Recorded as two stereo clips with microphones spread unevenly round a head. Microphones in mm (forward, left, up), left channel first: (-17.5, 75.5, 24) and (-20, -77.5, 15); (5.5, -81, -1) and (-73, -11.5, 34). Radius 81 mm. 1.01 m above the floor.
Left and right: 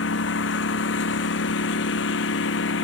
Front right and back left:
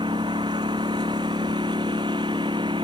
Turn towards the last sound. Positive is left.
turn(degrees=75)